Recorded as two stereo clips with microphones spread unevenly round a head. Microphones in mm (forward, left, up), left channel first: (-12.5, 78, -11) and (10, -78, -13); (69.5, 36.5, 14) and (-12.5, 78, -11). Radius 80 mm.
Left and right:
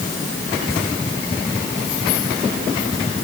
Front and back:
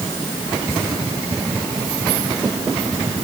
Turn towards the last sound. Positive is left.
No sound to turn to.